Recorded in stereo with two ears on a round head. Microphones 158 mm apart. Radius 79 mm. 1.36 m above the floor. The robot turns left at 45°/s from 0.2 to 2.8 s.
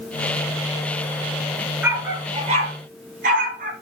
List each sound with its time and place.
1.8 s a dog barking: 5° right (ahead or behind), 5 m; by 3.7 s 50° right (ahead or behind), 5 m